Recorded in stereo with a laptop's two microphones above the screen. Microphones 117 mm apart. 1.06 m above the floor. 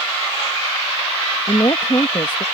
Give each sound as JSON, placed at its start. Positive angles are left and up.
{"t": 1.5, "sound": "a woman speaking", "side_deg": 40}